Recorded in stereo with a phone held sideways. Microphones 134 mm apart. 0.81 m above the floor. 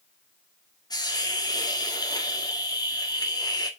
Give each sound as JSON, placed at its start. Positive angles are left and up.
{"t": 0.9, "sound": "a hiss", "side_deg": 30, "distance_m": 1.8}